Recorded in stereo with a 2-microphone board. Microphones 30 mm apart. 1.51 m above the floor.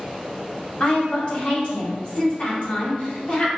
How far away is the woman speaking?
About 1.7 m.